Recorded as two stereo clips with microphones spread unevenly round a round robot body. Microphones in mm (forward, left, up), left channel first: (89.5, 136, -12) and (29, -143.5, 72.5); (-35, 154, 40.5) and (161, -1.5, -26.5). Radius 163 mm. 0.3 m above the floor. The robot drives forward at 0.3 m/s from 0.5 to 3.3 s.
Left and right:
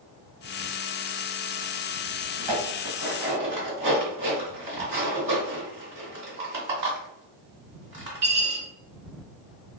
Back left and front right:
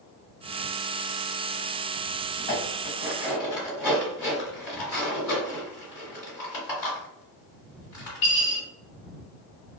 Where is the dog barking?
No dog barking in this recording.